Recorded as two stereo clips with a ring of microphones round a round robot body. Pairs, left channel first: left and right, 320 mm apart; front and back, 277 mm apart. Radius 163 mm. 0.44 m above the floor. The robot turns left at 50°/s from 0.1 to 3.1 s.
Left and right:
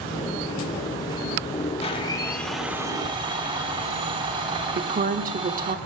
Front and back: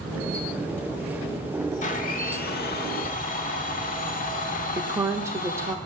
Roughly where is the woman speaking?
Right.